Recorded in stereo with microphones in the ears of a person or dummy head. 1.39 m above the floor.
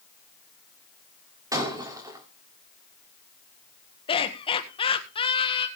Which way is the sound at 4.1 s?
25° left (ahead or behind).